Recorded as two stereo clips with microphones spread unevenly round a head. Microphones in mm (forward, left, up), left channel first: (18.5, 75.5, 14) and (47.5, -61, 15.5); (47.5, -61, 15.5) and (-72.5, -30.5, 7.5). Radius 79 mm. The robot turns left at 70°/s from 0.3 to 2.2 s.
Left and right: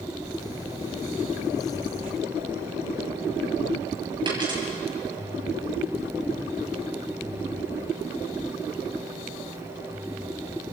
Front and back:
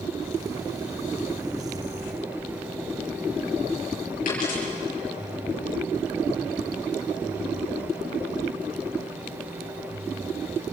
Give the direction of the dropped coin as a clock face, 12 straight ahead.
1 o'clock.